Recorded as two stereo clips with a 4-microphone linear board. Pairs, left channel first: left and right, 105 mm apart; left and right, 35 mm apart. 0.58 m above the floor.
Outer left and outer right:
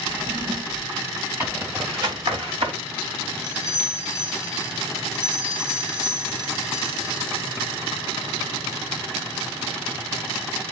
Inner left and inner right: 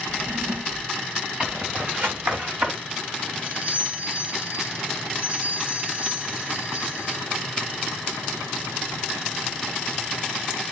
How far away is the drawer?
About 0.8 m.